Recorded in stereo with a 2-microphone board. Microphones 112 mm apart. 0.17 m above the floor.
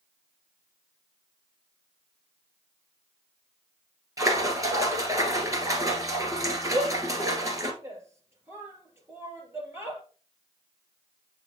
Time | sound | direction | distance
4.2 | a splash | 30° right (ahead or behind) | 1.7 m
6.7 | a shout | 25° right (ahead or behind) | 3 m